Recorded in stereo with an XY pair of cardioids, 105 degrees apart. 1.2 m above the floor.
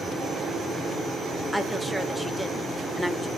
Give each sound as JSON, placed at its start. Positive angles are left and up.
{"t": 1.5, "sound": "a woman speaking", "azimuth_deg": -5, "distance_m": 1.0}